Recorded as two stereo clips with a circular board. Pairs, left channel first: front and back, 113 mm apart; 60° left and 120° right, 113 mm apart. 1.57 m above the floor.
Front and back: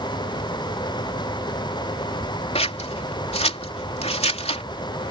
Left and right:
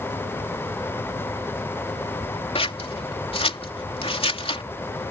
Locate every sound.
2.5 s scissors: 25° left